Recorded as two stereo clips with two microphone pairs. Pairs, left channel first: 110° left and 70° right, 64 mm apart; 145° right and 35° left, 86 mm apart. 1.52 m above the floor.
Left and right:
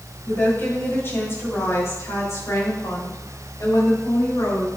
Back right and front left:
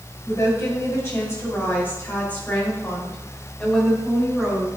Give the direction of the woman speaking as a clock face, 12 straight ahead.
6 o'clock.